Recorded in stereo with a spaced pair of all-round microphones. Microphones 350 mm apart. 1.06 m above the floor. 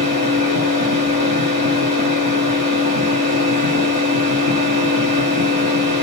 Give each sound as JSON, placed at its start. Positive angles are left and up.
{"t": 0.0, "sound": "a machine running", "side_deg": -65, "distance_m": 5.0}